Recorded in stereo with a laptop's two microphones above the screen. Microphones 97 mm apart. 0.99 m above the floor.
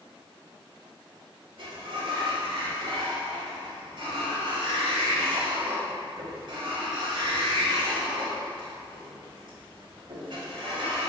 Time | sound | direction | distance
1.6 | a sliding door | 55° right (ahead or behind) | 1.8 m